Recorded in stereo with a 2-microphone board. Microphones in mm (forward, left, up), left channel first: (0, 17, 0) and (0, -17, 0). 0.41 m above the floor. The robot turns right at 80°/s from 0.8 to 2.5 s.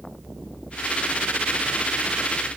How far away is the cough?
I don't hear a cough.